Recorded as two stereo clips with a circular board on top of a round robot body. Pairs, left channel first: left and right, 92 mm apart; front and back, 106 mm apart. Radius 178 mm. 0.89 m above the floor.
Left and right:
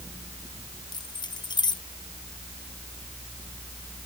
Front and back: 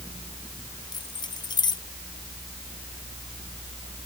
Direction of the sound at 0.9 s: 50° left.